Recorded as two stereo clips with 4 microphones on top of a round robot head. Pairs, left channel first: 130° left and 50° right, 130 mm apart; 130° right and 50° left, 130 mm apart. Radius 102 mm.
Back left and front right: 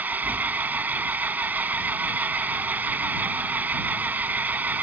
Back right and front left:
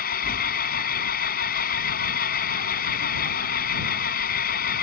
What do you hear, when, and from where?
0.0 s an engine running: 130° right